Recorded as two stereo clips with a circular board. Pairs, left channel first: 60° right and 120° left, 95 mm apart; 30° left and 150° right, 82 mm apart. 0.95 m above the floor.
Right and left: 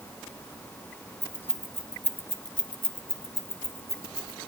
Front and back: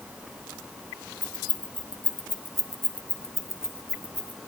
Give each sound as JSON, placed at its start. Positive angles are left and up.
{"t": 1.2, "sound": "keys jangling", "azimuth_deg": 40, "distance_m": 0.9}